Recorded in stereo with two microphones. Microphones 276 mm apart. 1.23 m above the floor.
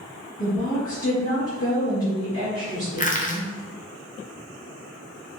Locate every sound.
0.4 s a woman speaking: 50° left (ahead or behind), 2.0 m
3.0 s crushing: 30° left (ahead or behind), 0.6 m